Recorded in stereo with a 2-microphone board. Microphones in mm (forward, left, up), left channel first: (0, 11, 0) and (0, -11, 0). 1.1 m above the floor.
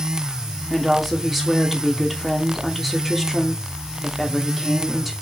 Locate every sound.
0.7 s a woman speaking: centre (ahead or behind), 2.5 m